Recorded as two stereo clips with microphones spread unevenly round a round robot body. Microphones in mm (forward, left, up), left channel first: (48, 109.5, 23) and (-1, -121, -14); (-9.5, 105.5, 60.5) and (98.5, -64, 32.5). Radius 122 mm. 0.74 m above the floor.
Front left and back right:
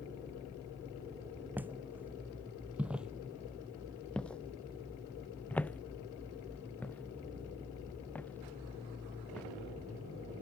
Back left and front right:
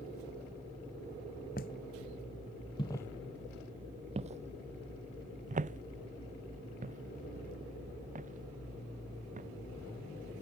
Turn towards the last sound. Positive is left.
turn(degrees=-5)